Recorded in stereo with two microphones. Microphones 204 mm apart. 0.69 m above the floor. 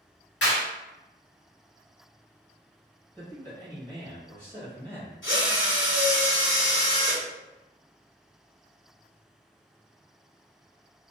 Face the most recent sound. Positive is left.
turn(degrees=80)